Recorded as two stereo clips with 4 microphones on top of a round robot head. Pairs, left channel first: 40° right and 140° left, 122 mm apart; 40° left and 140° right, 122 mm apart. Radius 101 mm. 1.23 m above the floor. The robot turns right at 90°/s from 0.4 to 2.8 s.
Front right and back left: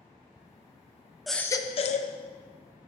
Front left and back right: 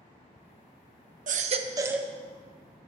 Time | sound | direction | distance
1.3 | a baby crying | 130° right | 0.9 m